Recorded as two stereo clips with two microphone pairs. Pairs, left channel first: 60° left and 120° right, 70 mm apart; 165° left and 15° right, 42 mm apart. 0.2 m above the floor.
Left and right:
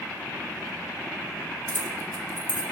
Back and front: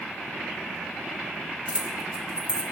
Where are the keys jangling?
25° left, 1.2 m.